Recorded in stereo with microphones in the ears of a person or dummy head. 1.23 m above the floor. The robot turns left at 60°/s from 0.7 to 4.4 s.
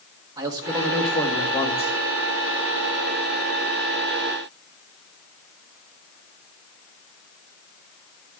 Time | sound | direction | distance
0.4 | a man speaking | 165° right | 1.7 m